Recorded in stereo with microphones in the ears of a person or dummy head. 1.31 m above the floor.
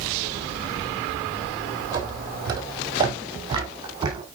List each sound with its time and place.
1.9 s footsteps: 15° right (ahead or behind), 1.7 m; by 4.2 s 25° right (ahead or behind), 2.5 m